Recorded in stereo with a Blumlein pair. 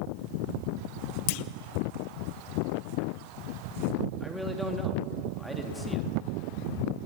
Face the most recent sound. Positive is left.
turn(degrees=0)